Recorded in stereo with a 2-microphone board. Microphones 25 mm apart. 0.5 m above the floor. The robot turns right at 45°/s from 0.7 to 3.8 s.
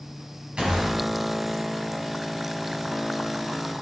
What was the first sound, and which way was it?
A gunshot, 45° right (ahead or behind).